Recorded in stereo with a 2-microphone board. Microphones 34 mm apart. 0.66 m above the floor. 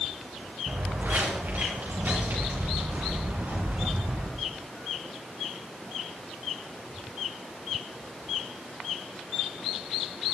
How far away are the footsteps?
About 3.5 m.